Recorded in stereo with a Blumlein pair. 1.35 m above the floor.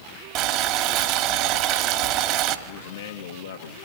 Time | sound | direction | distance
0.3 | boiling | 40° right | 1.9 m
2.7 | a man speaking | 60° left | 1.8 m